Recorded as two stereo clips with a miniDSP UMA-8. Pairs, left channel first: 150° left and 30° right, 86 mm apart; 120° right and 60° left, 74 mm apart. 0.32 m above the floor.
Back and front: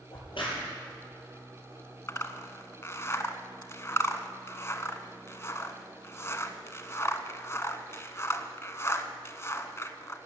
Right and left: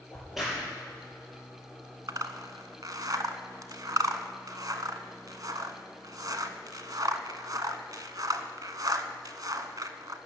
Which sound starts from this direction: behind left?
A crack, at 0.1 s.